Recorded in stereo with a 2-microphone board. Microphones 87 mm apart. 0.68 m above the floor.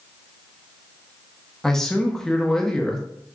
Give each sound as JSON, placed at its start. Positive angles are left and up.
{"t": 1.6, "sound": "a man speaking", "side_deg": 5, "distance_m": 0.6}